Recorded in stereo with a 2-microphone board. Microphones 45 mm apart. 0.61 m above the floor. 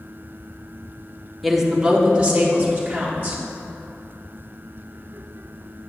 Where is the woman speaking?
Centre (ahead or behind), 0.7 m; by 3.4 s 35° right (ahead or behind), 2.5 m.